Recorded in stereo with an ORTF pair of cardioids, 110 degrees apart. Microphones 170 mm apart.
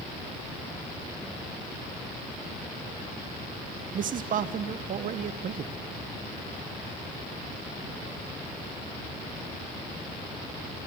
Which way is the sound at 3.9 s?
55° right.